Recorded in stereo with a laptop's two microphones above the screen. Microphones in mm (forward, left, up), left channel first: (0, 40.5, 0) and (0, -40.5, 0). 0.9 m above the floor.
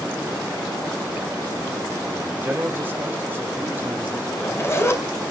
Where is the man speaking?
25° right (ahead or behind), 3.5 m.